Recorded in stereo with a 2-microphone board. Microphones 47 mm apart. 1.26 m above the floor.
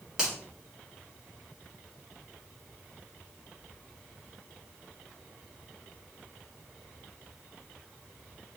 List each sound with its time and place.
0.2 s a finger snap: 15° right (ahead or behind), 1.9 m